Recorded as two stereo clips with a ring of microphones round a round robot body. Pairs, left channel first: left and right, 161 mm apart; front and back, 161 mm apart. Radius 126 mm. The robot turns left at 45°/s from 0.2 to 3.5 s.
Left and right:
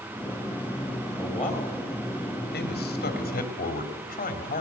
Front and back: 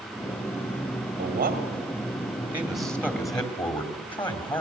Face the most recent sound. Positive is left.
turn(degrees=60)